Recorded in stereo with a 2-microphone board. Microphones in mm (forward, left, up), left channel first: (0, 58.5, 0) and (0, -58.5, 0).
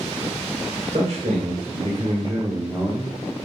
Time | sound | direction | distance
0.9 | a man speaking | 75° right (ahead or behind) | 3 m